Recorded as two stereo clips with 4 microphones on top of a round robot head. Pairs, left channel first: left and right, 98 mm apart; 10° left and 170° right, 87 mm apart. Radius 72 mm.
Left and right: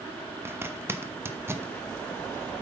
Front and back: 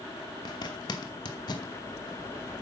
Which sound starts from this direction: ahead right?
A zipper, at 0.5 s.